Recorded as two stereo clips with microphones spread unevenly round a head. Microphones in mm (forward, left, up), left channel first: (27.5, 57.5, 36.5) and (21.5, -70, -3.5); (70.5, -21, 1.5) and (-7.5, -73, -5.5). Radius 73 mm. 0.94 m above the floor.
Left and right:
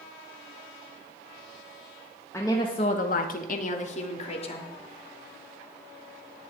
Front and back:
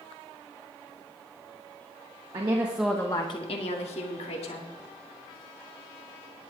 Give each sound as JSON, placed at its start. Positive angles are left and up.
{"t": 2.3, "sound": "a woman speaking", "azimuth_deg": 170, "distance_m": 1.3}